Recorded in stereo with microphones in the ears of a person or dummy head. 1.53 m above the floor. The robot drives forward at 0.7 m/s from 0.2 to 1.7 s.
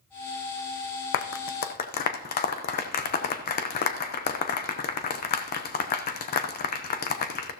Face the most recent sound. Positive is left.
turn(degrees=40)  # may be behind; listen again after turning